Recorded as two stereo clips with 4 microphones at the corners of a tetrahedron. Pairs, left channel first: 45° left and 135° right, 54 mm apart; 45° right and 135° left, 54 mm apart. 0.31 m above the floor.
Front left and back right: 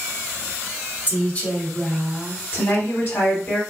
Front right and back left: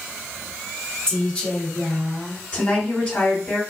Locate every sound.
1.1 s a woman speaking: 25° left, 1.7 m; by 2.4 s 40° right, 1.6 m
2.5 s a woman speaking: 15° left, 1.8 m